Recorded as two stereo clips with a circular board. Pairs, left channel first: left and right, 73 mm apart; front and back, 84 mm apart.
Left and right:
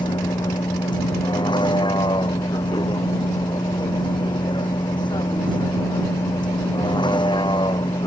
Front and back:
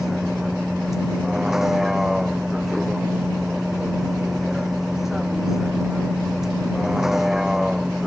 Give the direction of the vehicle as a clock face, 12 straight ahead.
9 o'clock.